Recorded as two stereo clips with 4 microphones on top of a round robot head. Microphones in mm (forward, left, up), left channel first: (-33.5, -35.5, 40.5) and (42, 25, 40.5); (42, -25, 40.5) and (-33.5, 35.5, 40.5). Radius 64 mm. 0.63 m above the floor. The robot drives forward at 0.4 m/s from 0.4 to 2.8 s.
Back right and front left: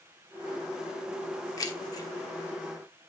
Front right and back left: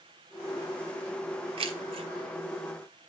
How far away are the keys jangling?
About 1.0 m.